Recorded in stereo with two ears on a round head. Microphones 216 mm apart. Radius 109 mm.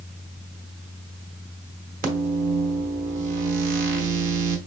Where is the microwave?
35° right (ahead or behind), 1.0 m.